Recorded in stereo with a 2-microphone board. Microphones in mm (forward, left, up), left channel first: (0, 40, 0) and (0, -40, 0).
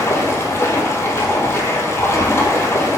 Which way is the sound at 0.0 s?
35° left (ahead or behind).